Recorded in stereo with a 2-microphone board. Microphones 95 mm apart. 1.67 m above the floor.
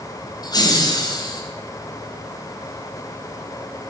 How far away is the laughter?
About 1.2 m.